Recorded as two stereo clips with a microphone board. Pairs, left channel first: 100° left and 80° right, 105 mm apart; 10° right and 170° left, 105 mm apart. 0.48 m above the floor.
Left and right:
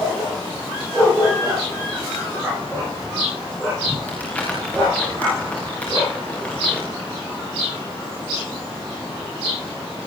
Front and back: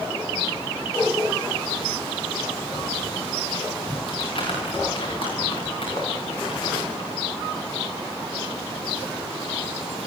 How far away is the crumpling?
About 8 m.